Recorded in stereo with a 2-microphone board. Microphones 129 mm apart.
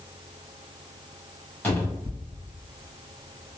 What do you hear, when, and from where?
1.6 s a cupboard door: 15° left (ahead or behind), 1.3 m